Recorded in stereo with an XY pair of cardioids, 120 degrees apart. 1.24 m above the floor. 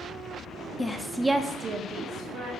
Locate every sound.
0.8 s a woman speaking: 20° left, 0.6 m; by 2.5 s 65° right, 1.0 m